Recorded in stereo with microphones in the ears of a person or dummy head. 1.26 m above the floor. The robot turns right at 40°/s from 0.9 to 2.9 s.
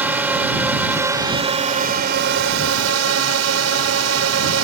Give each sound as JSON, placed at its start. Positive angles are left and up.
{"t": 0.0, "sound": "a drone", "azimuth_deg": -175}